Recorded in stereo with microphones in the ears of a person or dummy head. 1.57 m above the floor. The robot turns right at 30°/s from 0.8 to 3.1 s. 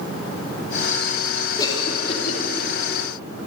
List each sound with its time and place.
1.6 s a cough: 30° left (ahead or behind), 3 m; by 2.4 s 55° left (ahead or behind), 3 m